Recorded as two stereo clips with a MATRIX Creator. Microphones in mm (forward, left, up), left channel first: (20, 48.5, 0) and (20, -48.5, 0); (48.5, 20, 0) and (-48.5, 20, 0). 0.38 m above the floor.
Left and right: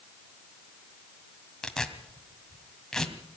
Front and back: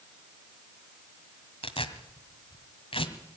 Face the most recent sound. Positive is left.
turn(degrees=5)